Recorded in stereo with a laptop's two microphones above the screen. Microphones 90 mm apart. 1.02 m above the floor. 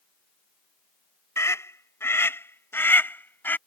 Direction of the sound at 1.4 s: 30° left (ahead or behind).